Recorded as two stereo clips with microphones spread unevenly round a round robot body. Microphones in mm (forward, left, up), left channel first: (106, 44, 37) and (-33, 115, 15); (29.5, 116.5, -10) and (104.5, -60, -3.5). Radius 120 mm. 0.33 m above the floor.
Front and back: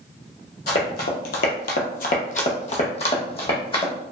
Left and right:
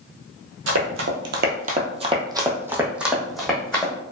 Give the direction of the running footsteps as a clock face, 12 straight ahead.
2 o'clock.